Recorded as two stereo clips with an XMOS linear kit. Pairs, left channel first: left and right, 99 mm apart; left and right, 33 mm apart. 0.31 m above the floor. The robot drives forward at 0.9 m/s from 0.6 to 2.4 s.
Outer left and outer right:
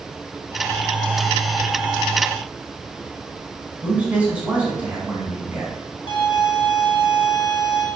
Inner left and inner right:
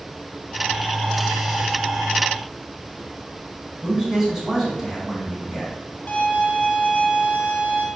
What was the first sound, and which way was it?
A man speaking, 10° right (ahead or behind).